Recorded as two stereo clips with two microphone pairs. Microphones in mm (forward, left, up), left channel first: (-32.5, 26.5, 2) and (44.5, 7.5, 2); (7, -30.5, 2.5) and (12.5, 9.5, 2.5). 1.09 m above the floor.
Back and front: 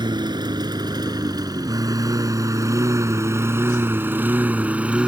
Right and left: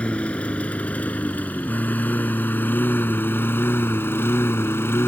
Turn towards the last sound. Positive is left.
turn(degrees=-90)